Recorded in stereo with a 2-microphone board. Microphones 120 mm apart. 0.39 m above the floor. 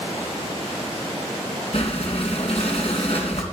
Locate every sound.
1.7 s breathing: 55° left (ahead or behind), 2.5 m